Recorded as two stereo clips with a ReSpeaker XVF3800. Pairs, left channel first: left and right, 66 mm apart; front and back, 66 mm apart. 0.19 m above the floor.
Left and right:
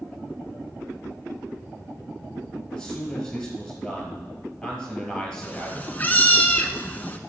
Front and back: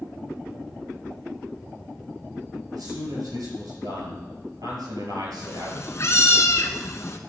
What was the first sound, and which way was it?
A man speaking, 170° left.